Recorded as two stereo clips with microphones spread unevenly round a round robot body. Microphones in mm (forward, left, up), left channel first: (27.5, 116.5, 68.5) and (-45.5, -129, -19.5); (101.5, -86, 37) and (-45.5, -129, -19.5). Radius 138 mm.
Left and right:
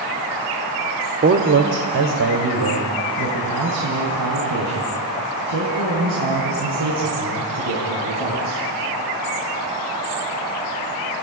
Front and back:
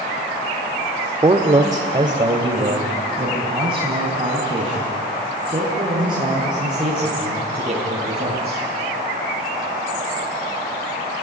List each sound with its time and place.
1.2 s a man speaking: 130° right, 1.3 m; by 8.6 s 105° right, 10 m